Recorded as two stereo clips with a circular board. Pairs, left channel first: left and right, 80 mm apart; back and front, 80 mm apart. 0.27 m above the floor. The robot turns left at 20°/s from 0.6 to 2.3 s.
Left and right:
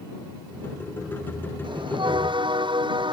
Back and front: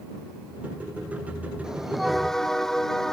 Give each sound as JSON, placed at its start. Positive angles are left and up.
{"t": 1.6, "sound": "a bell", "azimuth_deg": -80}